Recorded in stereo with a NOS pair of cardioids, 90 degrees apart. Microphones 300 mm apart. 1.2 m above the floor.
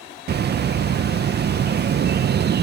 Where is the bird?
35° right.